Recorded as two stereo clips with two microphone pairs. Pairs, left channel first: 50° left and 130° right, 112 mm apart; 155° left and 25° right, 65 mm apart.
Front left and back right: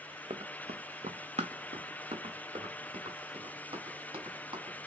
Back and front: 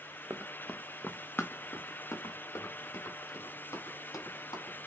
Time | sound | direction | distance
0.3 | running footsteps | 90° right | 0.5 m